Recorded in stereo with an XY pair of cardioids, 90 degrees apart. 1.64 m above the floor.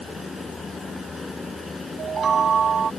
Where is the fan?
30° left.